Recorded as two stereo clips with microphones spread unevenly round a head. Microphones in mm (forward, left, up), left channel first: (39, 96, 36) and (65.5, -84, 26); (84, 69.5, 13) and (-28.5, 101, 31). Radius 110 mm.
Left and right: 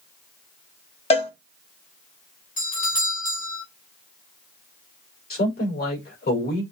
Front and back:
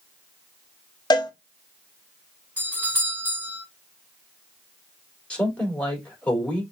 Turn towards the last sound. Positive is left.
turn(degrees=65)